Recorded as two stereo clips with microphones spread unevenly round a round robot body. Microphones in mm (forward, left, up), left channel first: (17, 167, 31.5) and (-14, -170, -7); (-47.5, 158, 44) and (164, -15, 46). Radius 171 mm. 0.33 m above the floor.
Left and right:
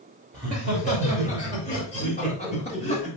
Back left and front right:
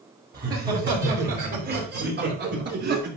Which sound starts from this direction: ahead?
Laughter, at 0.3 s.